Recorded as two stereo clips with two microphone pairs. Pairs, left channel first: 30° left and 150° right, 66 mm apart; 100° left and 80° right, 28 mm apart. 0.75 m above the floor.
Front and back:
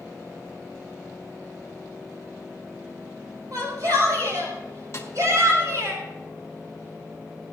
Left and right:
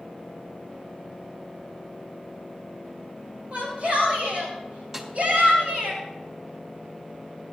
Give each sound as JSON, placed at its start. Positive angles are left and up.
{"t": 3.5, "sound": "a shout", "azimuth_deg": -130, "distance_m": 4.0}
{"t": 4.9, "sound": "a snare drum", "azimuth_deg": -15, "distance_m": 3.0}